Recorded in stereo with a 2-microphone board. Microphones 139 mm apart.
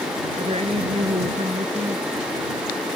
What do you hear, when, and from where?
0.4 s a woman speaking: 45° right (ahead or behind)